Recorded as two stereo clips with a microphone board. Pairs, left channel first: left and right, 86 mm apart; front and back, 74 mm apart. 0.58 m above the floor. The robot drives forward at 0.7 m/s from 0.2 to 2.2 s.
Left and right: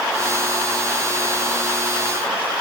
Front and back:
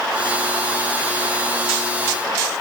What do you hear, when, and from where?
Only background noise.